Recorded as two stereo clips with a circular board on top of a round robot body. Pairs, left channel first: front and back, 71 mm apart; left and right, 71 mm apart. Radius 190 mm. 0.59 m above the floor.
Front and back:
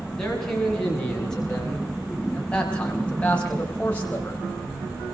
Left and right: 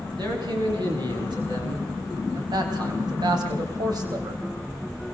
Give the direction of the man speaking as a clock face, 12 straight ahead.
3 o'clock.